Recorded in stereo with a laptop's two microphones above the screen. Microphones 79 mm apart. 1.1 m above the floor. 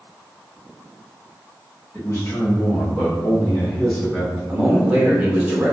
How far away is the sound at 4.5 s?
About 1.2 m.